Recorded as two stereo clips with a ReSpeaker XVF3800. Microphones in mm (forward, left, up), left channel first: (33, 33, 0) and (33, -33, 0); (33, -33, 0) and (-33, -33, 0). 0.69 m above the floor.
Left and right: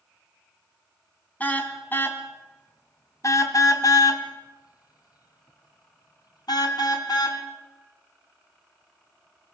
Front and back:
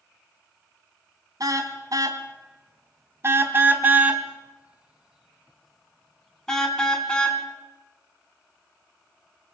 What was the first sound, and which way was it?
A car horn, 155° left.